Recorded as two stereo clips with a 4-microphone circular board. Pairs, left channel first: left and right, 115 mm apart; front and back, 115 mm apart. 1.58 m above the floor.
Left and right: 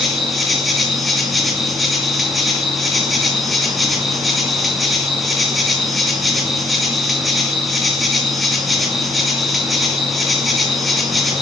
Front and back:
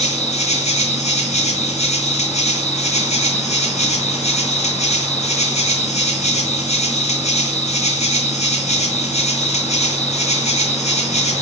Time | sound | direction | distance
0.0 | an insect | straight ahead | 2.5 m